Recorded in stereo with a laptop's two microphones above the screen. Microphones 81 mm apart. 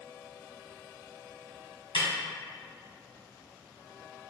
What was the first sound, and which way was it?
A snare drum, 70° left (ahead or behind).